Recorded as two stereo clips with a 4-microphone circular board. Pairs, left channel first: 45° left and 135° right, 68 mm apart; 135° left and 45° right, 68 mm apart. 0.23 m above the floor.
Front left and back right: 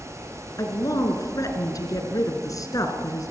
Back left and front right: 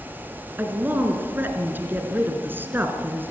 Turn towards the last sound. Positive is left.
turn(degrees=15)